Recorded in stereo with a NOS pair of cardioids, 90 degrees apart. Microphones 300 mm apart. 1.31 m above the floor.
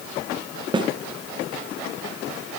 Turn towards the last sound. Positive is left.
turn(degrees=-15)